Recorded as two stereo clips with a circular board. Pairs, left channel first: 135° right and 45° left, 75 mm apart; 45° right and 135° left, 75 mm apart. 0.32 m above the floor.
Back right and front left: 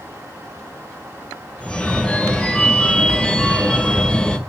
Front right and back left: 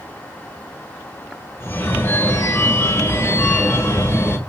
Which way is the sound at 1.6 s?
65° right.